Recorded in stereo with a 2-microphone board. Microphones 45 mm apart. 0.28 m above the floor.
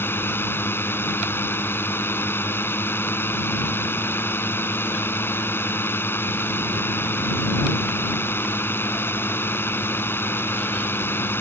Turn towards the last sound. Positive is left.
turn(degrees=60)  # may be behind; listen again after turning